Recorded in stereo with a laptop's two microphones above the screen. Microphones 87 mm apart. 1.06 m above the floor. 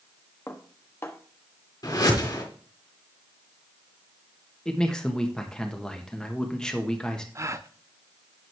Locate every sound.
0.5 s dishes clattering: 30° left (ahead or behind), 1.0 m
1.8 s a whoosh: 45° left (ahead or behind), 3.5 m
4.7 s a man speaking: 10° left (ahead or behind), 1.1 m
7.3 s a gasp: 35° right (ahead or behind), 0.5 m